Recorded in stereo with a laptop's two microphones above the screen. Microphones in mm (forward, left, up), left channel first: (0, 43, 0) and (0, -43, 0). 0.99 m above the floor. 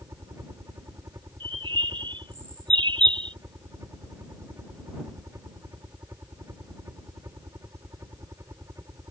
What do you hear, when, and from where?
0.0 s a helicopter: 35° right (ahead or behind)
1.4 s a bird: 70° right (ahead or behind)